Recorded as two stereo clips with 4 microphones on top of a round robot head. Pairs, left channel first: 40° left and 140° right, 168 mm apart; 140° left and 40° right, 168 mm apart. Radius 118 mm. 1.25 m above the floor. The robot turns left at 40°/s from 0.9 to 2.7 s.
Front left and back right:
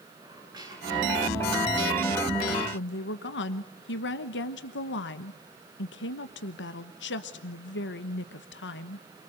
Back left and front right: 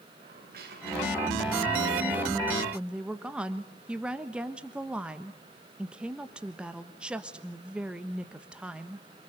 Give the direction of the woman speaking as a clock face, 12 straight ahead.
10 o'clock.